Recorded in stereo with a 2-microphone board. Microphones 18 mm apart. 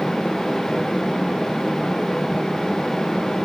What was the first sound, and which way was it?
Only background noise.